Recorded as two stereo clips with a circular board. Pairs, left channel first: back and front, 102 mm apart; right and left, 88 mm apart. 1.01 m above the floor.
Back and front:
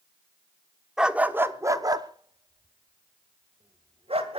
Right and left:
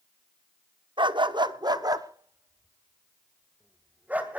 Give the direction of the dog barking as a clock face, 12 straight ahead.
9 o'clock.